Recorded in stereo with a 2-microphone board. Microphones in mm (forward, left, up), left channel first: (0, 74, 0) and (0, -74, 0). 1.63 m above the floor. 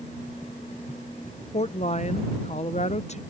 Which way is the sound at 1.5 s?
50° left (ahead or behind).